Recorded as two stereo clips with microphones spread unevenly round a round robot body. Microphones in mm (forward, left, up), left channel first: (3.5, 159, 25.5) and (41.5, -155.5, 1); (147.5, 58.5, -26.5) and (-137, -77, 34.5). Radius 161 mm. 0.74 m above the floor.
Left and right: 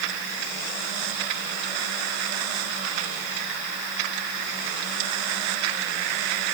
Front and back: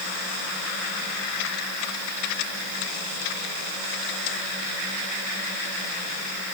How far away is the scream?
No scream in this recording.